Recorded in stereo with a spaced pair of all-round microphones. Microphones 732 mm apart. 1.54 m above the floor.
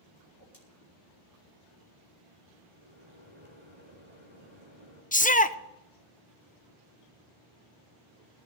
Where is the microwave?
15° right (ahead or behind), 6 m.